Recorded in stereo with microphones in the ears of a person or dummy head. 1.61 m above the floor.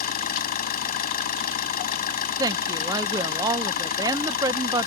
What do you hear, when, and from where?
0.0 s an engine running: 50° left (ahead or behind)
2.4 s a woman speaking: 20° right (ahead or behind)